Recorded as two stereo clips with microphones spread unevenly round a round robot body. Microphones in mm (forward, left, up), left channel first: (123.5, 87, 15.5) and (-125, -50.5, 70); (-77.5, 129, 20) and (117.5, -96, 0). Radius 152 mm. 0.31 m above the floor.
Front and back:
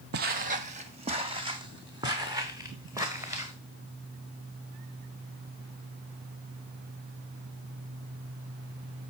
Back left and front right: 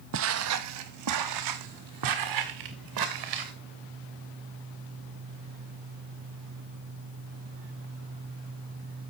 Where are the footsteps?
100° right, 0.6 m; by 3.5 s 70° right, 2.5 m.